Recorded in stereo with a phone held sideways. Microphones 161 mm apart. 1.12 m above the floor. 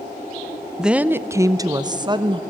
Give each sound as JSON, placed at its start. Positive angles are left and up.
{"t": 0.8, "sound": "a woman speaking", "side_deg": -5, "distance_m": 0.5}